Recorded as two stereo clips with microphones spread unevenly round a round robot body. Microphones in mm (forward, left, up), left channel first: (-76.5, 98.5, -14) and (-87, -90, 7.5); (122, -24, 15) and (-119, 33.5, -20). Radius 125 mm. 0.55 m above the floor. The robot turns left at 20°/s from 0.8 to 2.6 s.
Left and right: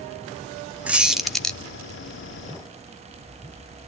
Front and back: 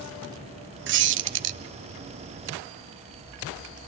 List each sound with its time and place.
0.9 s a squeak: straight behind, 0.8 m; by 1.6 s 165° left, 0.8 m